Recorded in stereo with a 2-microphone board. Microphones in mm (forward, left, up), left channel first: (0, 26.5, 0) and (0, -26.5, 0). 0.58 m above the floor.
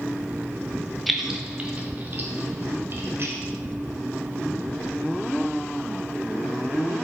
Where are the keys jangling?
Centre (ahead or behind), 0.8 m; by 3.4 s 55° right (ahead or behind), 1.9 m.